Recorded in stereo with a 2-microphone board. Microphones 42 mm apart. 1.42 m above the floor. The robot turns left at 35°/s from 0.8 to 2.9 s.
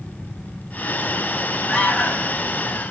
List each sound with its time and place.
1.7 s an alarm: 25° left (ahead or behind), 3.5 m; by 2.4 s 45° left (ahead or behind), 3.5 m